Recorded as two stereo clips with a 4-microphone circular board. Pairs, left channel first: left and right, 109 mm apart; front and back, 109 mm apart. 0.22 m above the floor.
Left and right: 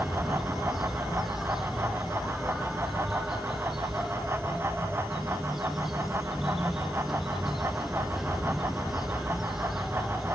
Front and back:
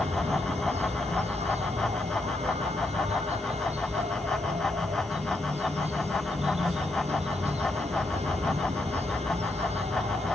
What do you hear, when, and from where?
0.0 s an insect: straight behind